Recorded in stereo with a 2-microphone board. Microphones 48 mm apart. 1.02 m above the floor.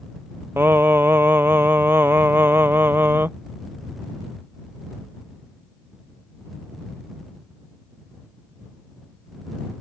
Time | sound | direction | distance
0.6 | singing | 50° right (ahead or behind) | ?